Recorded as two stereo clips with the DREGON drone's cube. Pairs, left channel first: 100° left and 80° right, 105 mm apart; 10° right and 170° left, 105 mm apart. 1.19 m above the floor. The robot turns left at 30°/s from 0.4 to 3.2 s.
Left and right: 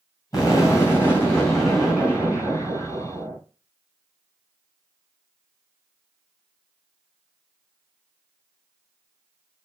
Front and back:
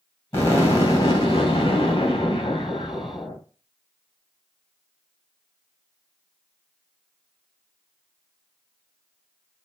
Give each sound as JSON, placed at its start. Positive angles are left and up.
{"t": 0.3, "sound": "an explosion", "azimuth_deg": 50, "distance_m": 2.5}